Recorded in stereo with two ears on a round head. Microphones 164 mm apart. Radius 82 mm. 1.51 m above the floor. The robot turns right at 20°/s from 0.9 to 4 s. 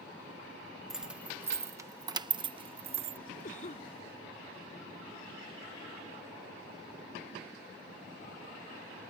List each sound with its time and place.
0.9 s keys jangling: 5° right (ahead or behind); by 3.2 s 40° right (ahead or behind)
3.4 s a cough: 45° left (ahead or behind); by 3.9 s 35° left (ahead or behind)